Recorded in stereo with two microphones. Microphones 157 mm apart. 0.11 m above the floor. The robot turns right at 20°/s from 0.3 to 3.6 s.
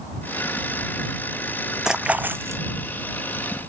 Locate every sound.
1.9 s a splash: 5° right (ahead or behind); by 2.6 s 20° right (ahead or behind)